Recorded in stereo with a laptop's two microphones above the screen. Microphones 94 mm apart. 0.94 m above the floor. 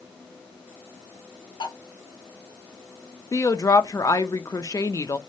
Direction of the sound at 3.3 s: 40° left (ahead or behind).